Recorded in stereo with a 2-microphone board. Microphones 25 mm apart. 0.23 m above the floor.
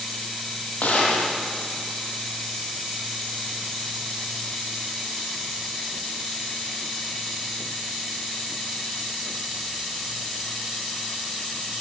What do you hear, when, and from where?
0.8 s a gunshot: 70° left (ahead or behind), 7.5 m